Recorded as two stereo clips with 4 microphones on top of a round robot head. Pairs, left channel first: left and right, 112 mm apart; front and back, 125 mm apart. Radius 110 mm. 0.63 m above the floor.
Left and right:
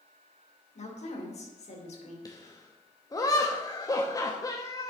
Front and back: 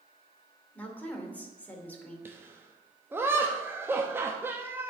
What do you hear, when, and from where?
0.8 s a woman speaking: 75° left, 2.5 m
2.2 s laughter: 120° left, 0.9 m